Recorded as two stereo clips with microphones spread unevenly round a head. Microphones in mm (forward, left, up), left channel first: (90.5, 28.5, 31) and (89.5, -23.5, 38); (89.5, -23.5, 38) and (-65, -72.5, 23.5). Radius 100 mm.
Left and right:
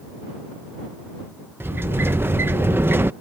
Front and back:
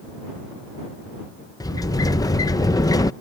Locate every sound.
1.6 s a sliding door: 50° right